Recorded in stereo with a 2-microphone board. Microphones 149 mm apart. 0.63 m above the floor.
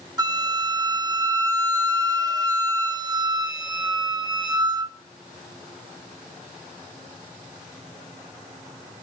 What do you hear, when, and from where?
0.2 s a flute: 25° right (ahead or behind), 1.2 m